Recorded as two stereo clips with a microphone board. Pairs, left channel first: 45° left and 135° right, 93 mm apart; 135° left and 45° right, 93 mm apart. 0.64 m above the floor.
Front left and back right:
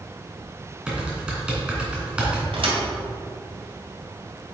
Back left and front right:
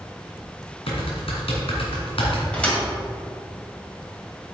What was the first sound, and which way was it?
Typing on a keyboard, 145° left.